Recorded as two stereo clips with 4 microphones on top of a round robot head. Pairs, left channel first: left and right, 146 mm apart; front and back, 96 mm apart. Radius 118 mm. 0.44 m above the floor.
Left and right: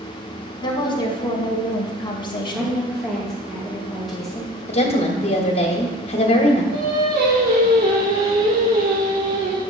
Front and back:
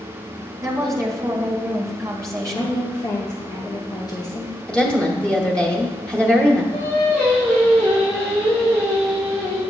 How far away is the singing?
About 3 m.